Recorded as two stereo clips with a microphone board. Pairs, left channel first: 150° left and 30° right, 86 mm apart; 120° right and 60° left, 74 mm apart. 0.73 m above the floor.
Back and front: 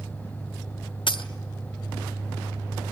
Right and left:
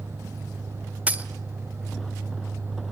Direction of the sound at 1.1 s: 130° left.